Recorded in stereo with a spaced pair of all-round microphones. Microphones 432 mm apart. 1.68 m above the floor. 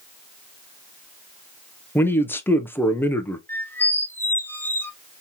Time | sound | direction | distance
1.9 | a man speaking | 5° left (ahead or behind) | 0.6 m
3.5 | a squeak | 5° left (ahead or behind) | 0.7 m